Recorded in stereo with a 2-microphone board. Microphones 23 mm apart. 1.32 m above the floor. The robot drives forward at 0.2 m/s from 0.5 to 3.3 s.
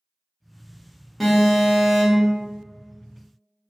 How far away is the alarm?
About 1.2 m.